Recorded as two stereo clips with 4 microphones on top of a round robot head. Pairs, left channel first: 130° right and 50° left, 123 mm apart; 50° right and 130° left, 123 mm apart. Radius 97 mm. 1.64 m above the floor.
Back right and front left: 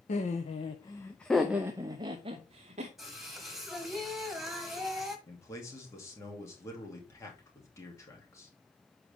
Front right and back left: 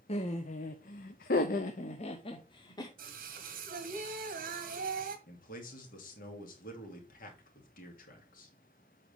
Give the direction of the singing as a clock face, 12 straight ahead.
7 o'clock.